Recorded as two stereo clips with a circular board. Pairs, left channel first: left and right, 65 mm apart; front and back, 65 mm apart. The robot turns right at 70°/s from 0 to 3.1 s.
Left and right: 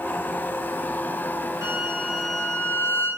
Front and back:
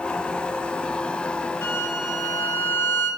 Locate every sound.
1.6 s a violin: 60° right, 3.5 m; by 3.1 s 45° left, 3.5 m